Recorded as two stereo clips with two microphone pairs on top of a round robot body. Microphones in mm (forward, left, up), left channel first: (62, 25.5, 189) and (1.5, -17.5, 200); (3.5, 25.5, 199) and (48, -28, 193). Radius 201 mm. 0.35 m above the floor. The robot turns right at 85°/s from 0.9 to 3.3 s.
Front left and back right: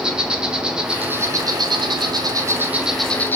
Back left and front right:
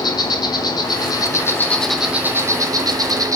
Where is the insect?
135° left, 1.1 m; by 3.4 s 20° right, 1.1 m.